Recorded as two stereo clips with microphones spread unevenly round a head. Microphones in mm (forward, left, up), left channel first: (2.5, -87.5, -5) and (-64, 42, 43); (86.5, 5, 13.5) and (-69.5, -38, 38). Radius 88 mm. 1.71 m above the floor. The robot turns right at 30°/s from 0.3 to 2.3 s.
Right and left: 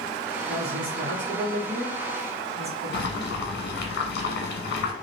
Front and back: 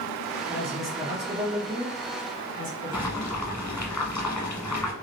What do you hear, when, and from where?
0.5 s a woman speaking: 110° left, 1.6 m; by 3.4 s 165° left, 1.6 m
2.9 s boiling: 75° right, 1.0 m